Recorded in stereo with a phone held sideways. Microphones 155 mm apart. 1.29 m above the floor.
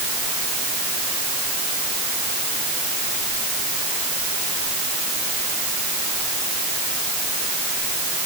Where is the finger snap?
I don't hear a finger snap.